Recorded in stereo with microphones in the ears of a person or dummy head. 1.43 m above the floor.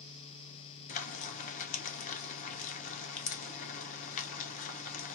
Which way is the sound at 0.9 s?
40° left (ahead or behind).